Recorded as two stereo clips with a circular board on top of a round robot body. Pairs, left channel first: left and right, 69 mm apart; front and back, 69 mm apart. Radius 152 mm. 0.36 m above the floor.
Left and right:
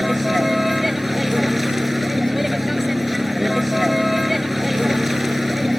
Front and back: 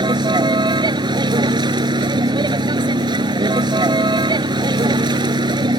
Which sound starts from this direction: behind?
A vehicle, at 0.0 s.